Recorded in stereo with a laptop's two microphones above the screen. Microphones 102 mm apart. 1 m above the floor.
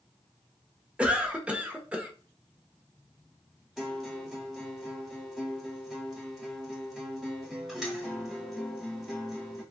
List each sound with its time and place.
1.0 s a cough: 10° right (ahead or behind), 0.7 m
3.8 s a guitar: 5° right (ahead or behind), 1.1 m